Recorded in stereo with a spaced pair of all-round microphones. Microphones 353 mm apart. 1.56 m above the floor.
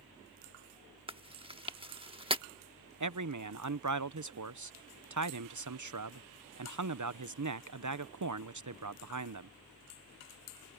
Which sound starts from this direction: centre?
Chewing, at 1.1 s.